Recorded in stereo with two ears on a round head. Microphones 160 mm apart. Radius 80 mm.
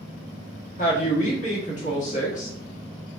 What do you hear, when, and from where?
0.8 s a woman speaking: 45° left (ahead or behind), 1.6 m